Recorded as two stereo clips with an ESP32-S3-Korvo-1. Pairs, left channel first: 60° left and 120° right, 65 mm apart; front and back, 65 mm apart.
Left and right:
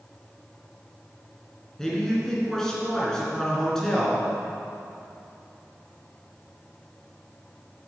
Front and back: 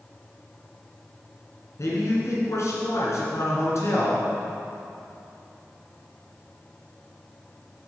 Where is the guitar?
I don't hear a guitar.